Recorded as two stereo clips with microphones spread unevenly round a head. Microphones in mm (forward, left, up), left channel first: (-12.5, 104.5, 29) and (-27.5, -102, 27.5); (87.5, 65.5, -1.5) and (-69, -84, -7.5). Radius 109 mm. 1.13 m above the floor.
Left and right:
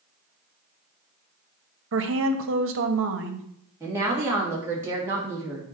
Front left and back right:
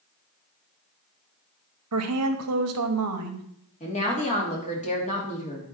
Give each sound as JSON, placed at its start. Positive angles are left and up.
{"t": 1.9, "sound": "a woman speaking", "azimuth_deg": -120, "distance_m": 1.3}
{"t": 3.8, "sound": "a woman speaking", "azimuth_deg": -15, "distance_m": 2.5}